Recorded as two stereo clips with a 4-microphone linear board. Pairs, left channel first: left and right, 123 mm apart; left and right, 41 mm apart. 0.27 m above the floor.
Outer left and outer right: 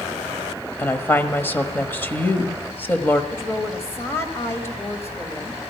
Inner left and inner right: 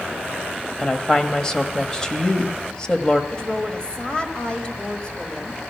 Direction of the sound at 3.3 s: 25° left (ahead or behind).